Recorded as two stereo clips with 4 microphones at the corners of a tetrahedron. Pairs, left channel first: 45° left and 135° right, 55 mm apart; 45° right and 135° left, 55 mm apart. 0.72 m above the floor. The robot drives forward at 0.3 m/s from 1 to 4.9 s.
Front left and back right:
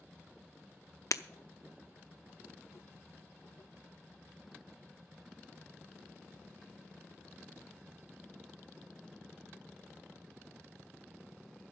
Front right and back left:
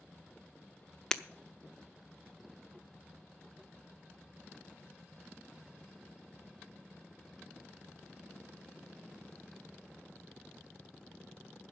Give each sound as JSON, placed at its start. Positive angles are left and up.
{"t": 1.1, "sound": "breaking glass", "azimuth_deg": 30, "distance_m": 0.6}